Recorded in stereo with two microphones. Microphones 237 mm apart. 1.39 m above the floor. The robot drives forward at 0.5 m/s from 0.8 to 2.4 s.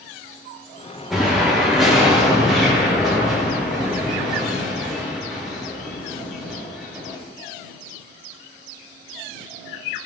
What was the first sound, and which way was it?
An explosion, centre (ahead or behind).